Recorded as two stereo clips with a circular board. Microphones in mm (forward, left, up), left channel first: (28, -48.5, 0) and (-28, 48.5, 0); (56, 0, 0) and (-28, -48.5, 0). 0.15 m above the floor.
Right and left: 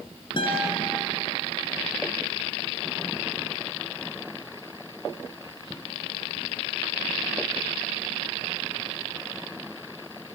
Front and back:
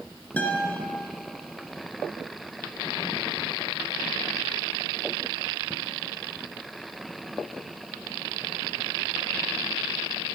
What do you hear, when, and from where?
0.4 s a guitar: 40° right, 2.5 m